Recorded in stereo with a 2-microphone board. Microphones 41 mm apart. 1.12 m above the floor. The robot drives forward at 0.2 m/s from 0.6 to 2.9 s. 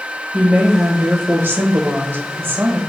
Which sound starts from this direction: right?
A woman speaking, at 0.3 s.